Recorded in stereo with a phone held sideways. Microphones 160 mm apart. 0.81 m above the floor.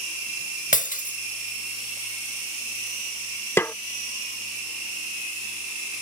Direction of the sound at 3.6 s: 15° left (ahead or behind).